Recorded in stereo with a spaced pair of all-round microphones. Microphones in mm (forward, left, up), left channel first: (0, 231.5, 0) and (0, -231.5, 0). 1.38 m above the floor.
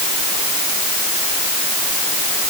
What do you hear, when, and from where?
Only background noise.